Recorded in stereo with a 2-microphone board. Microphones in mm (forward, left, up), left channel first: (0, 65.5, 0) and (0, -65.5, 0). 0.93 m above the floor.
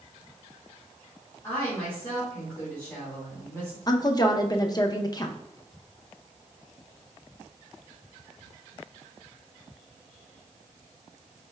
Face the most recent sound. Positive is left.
turn(degrees=30)  # may be behind; listen again after turning